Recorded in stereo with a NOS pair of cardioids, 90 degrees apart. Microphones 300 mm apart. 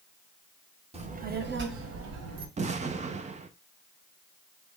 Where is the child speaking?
20° right, 1.0 m; by 2.5 s 60° right, 1.3 m.